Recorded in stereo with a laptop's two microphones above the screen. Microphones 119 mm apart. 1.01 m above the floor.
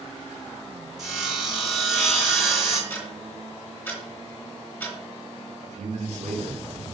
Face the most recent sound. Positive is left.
turn(degrees=-75)  # may be behind; listen again after turning